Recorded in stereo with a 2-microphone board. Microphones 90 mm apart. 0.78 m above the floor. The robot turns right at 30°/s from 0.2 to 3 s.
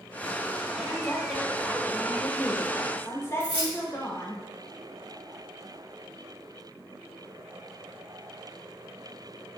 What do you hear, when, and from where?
0.8 s a woman speaking: 5° left, 0.9 m; by 4.4 s 70° left, 0.9 m
3.4 s keys jangling: 60° right (ahead or behind), 2 m